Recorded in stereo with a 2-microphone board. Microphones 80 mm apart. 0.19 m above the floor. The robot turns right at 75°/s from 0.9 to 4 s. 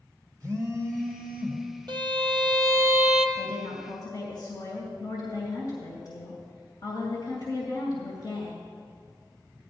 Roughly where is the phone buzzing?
Right.